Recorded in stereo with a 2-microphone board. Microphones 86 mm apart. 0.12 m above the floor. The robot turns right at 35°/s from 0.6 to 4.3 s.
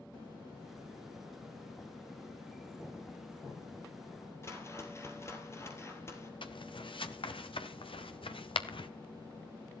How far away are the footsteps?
About 2 m.